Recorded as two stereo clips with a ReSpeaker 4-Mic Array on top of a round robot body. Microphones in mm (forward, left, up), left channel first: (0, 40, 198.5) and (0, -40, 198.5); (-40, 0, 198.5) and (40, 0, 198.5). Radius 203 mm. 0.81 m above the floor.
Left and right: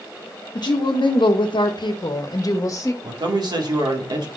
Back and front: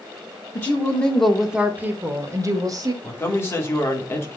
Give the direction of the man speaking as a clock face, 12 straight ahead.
4 o'clock.